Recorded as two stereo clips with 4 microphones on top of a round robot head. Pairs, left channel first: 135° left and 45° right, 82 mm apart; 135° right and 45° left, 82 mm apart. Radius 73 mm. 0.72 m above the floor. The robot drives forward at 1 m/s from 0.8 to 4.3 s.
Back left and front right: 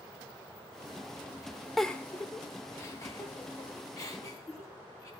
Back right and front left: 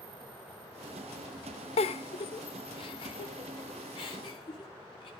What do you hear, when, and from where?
1.8 s a giggle: 135° right, 0.7 m; by 5.1 s 170° right, 3 m